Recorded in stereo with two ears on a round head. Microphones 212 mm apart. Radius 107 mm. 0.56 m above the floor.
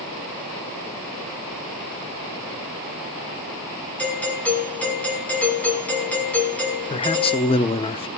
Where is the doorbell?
5° left (ahead or behind), 5 m.